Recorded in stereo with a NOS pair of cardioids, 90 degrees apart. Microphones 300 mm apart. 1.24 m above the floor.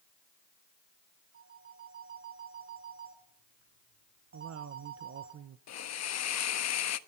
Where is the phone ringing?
40° right, 8.5 m.